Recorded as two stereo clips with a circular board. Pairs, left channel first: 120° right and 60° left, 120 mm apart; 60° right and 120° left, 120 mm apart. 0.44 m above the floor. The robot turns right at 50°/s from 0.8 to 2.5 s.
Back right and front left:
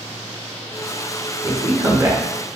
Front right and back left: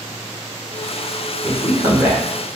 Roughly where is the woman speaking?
Left.